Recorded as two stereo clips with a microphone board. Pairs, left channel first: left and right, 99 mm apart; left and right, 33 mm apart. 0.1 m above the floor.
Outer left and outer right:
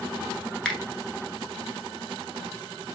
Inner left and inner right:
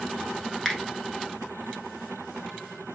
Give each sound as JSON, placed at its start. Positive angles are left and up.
{"t": 0.7, "sound": "a finger snap", "side_deg": 5, "distance_m": 0.9}